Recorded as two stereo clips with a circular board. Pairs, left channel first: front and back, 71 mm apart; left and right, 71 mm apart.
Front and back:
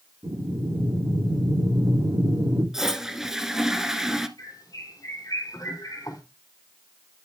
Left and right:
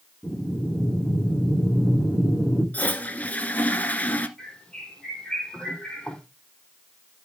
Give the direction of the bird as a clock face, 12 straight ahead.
12 o'clock.